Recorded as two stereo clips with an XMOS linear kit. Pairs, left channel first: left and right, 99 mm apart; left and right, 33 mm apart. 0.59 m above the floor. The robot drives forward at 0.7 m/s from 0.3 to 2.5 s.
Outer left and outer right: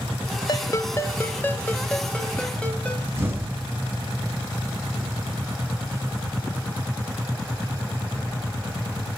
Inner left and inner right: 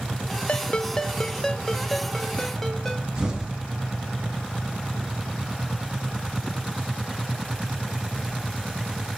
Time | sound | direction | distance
0.5 | a ringtone | 40° left (ahead or behind) | 0.6 m
3.2 | an explosion | 20° right (ahead or behind) | 3.5 m